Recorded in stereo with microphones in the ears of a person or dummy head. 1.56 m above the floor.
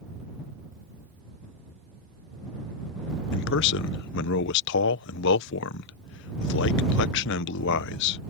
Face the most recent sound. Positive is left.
turn(degrees=65)  # may be behind; listen again after turning